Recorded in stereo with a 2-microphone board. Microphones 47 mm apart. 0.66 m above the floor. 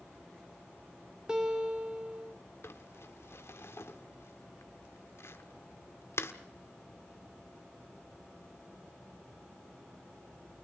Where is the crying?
No crying in this recording.